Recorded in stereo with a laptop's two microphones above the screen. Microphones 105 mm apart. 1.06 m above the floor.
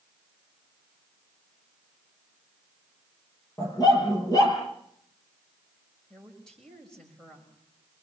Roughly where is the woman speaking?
Centre.